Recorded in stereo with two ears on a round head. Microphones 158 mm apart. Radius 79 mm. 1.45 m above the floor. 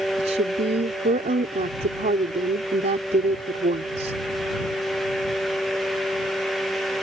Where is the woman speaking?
40° right (ahead or behind).